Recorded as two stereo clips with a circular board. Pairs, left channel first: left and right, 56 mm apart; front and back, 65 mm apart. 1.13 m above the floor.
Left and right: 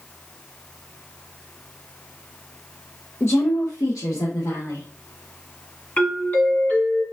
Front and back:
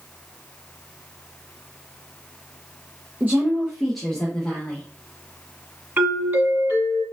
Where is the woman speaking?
125° left, 0.7 m; by 4.9 s 70° left, 1.7 m.